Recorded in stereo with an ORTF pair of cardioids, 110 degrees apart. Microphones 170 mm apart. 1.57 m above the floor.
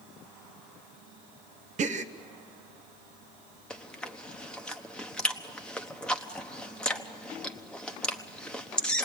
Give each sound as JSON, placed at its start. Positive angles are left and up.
{"t": 1.8, "sound": "a gasp", "azimuth_deg": -45, "distance_m": 0.8}
{"t": 3.7, "sound": "chewing", "azimuth_deg": 5, "distance_m": 1.1}